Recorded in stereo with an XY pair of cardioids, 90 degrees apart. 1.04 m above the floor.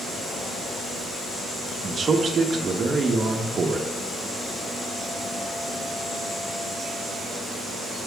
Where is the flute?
No flute in this recording.